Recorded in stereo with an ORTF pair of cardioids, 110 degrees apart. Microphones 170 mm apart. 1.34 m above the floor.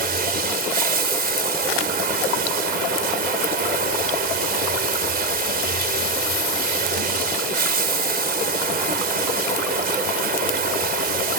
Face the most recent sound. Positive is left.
turn(degrees=-65)